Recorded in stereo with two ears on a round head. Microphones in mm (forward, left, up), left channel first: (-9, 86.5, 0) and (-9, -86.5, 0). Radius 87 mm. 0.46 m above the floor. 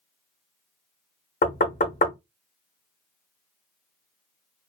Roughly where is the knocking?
Left.